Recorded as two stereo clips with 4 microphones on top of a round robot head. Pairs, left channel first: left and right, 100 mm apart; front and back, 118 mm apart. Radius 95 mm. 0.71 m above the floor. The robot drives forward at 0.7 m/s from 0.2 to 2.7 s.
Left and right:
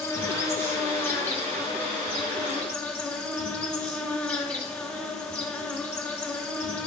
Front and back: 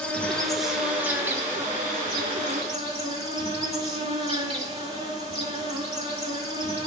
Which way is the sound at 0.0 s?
70° left.